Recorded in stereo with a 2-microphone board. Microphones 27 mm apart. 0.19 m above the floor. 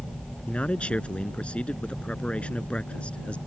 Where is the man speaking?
50° left (ahead or behind).